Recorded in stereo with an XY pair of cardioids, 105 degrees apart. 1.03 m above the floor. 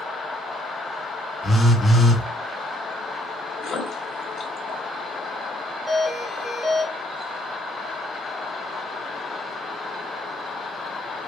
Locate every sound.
1.4 s a phone buzzing: 20° left, 1.1 m
3.6 s a splash: 55° left, 1.6 m
5.9 s a doorbell: 15° right, 1.9 m